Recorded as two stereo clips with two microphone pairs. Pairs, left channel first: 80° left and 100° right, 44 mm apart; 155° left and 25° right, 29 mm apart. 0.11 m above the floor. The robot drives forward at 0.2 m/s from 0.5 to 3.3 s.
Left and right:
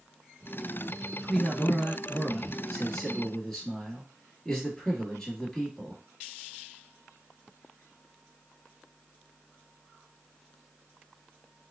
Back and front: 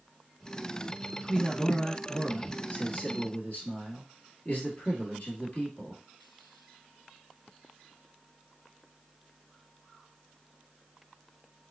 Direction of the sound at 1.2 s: 145° left.